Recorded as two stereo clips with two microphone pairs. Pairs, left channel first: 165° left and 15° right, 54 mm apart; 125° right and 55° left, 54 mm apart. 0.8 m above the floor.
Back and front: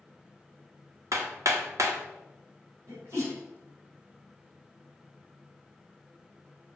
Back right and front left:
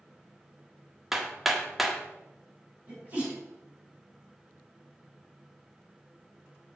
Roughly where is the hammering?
Ahead right.